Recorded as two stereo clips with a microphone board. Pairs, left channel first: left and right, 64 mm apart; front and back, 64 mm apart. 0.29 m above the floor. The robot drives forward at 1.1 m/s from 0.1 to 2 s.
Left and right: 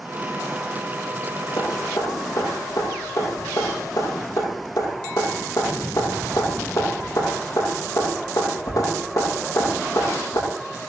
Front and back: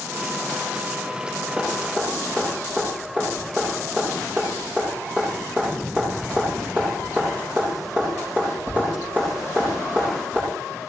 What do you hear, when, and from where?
1.6 s dripping: 115° left, 9 m